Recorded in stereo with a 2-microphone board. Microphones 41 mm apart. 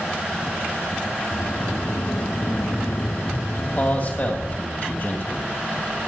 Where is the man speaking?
45° left (ahead or behind), 2.0 m.